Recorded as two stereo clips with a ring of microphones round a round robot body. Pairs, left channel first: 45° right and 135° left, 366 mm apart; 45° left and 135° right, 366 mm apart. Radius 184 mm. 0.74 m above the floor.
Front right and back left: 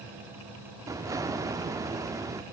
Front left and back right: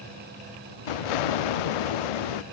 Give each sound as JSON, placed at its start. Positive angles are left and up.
{"t": 0.9, "sound": "an explosion", "azimuth_deg": 55, "distance_m": 0.6}